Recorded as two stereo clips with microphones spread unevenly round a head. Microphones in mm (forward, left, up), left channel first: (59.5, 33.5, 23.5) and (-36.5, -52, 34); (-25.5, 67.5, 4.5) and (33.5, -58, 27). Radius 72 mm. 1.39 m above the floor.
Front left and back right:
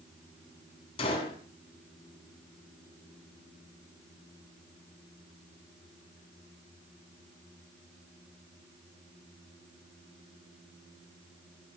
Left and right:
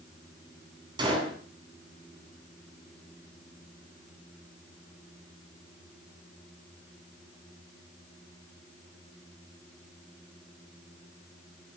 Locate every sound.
1.0 s a gunshot: 5° right, 9 m